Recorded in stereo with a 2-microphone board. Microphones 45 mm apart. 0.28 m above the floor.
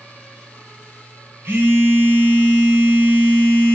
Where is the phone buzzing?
75° right (ahead or behind), 1.2 m.